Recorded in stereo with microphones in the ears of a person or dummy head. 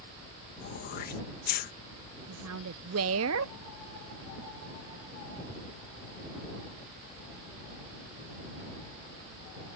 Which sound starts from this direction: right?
A woman speaking, at 2.3 s.